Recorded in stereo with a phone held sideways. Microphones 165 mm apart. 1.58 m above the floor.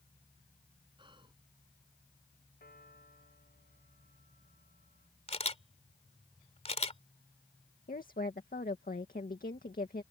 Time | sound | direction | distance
1.0 | whispering | 30° right (ahead or behind) | ?
2.6 | a piano | 65° left (ahead or behind) | ?
5.3 | a camera shutter | 40° left (ahead or behind) | ?
7.9 | a woman speaking | 55° left (ahead or behind) | ?